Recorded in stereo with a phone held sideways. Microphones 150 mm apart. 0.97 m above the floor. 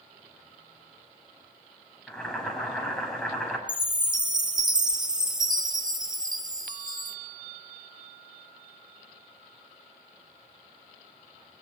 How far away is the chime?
About 1.5 m.